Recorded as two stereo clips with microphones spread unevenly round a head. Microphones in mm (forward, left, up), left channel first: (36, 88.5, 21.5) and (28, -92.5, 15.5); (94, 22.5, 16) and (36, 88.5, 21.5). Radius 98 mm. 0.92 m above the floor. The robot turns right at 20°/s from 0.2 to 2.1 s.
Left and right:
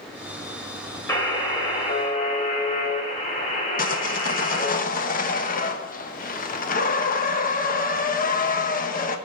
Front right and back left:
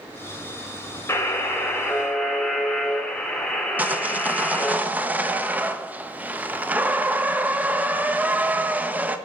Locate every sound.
1.1 s a buzzer: 10° left, 5 m; by 4.8 s 30° left, 5 m
3.8 s sawing: 60° left, 1.2 m